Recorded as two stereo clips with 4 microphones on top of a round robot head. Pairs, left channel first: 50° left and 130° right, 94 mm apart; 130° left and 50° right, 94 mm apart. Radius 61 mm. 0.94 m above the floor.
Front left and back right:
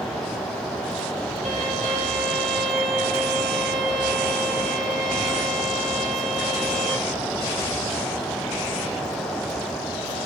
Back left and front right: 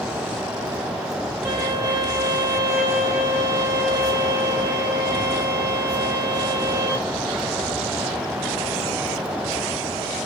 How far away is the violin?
About 1.1 m.